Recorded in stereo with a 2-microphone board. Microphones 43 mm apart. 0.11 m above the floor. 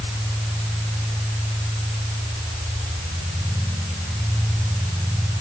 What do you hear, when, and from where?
Only background noise.